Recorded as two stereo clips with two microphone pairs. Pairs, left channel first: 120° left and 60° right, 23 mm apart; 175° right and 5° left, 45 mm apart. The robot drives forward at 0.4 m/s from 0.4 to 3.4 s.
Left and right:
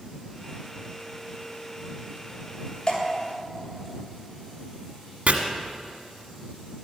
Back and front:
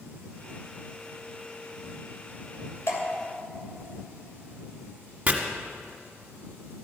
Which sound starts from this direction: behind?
Dripping, at 2.9 s.